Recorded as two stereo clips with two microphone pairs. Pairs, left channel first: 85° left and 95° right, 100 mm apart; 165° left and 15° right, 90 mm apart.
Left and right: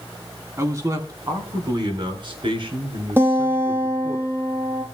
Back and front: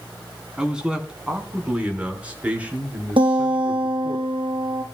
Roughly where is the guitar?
Ahead right.